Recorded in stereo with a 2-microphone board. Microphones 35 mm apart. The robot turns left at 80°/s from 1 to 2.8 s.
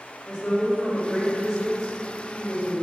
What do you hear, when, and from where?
0.2 s a woman speaking: 30° left, 1.4 m; by 2.8 s 115° right, 1.4 m